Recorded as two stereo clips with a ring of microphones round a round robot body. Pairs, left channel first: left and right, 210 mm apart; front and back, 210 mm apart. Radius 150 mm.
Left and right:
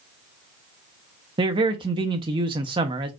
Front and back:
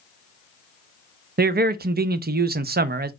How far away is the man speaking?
About 0.6 m.